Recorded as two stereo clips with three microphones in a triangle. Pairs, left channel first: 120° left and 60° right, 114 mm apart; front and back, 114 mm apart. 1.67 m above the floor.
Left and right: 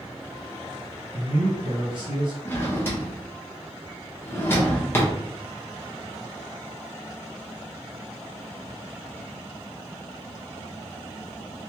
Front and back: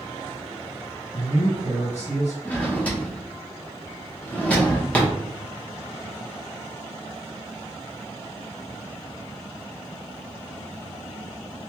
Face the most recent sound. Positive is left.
turn(degrees=65)